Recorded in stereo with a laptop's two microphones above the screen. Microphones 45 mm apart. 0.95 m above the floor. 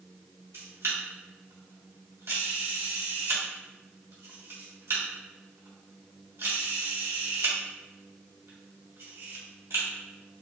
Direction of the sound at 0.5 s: 70° right (ahead or behind).